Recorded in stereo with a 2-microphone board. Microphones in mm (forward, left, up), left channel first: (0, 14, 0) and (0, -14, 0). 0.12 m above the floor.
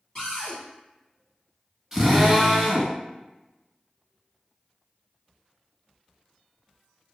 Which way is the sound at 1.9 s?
10° right (ahead or behind).